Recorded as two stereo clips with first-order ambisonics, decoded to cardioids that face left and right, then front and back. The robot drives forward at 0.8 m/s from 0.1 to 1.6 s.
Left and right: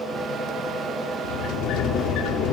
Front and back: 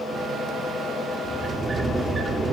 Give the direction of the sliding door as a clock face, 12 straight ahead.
9 o'clock.